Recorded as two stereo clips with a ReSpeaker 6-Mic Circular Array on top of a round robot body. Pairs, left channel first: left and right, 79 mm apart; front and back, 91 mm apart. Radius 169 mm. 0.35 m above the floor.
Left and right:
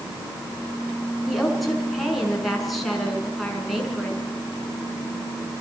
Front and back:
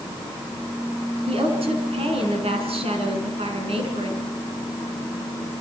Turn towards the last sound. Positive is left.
turn(degrees=180)